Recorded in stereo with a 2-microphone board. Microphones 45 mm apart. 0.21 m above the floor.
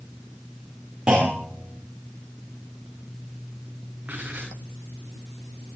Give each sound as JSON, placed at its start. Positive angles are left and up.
{"t": 1.1, "sound": "a clunk", "side_deg": -20, "distance_m": 10.0}
{"t": 4.0, "sound": "writing", "side_deg": -35, "distance_m": 7.5}